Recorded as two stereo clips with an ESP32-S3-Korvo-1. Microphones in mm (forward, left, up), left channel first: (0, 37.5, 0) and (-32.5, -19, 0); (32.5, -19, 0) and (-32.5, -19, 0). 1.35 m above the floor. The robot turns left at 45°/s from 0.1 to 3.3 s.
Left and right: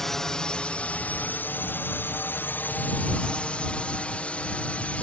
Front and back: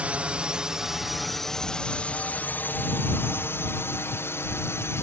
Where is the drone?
135° left; by 5.0 s 5° left.